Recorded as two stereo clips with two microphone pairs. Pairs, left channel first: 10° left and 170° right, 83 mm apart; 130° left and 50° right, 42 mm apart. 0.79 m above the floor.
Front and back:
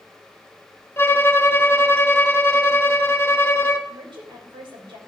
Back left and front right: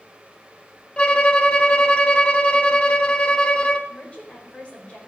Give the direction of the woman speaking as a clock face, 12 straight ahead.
6 o'clock.